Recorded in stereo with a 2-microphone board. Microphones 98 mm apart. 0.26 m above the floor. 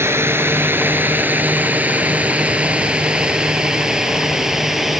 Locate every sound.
0.0 s a drone: 25° right (ahead or behind); by 5.0 s 5° right (ahead or behind)